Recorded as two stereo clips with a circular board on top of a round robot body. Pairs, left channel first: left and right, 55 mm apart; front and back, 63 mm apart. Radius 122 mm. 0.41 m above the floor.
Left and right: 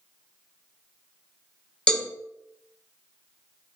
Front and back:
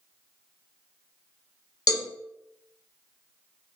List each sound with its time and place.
1.9 s a cowbell: 15° left, 1.5 m